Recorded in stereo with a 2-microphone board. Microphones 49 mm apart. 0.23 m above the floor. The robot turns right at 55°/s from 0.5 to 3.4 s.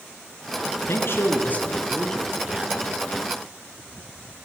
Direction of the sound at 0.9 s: 105° left.